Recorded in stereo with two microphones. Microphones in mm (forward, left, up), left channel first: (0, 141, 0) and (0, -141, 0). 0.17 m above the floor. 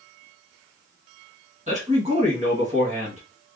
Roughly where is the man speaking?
Right.